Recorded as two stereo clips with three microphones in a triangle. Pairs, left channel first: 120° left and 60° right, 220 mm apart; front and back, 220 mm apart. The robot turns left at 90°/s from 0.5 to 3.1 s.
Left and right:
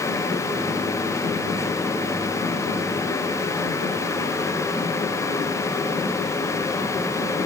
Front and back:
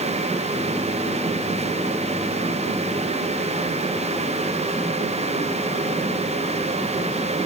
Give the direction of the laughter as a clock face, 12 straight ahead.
No laughter in this recording.